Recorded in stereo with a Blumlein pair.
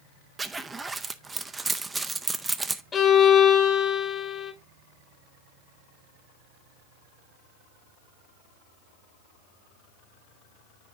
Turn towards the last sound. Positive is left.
turn(degrees=20)